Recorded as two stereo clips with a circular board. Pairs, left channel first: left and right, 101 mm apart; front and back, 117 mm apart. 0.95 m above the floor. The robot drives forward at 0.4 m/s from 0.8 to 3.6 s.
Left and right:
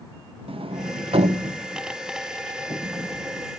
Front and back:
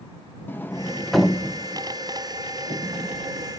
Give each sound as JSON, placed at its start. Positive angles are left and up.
{"t": 0.5, "sound": "a sliding door", "azimuth_deg": -75, "distance_m": 0.6}